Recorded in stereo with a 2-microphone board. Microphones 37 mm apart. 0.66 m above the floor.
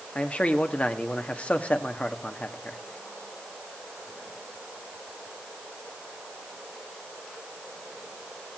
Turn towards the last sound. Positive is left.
turn(degrees=35)  # may be behind; listen again after turning